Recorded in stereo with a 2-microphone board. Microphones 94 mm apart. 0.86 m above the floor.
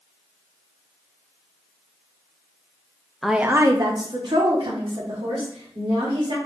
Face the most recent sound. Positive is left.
turn(degrees=-75)  # may be behind; listen again after turning